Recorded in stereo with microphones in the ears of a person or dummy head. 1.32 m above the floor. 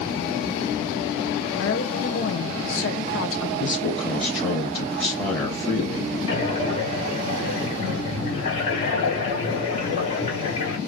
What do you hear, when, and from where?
1.6 s a woman speaking: 70° left (ahead or behind), 0.8 m
3.6 s a man speaking: 15° left (ahead or behind), 1.3 m
6.3 s breathing: 40° left (ahead or behind), 1.5 m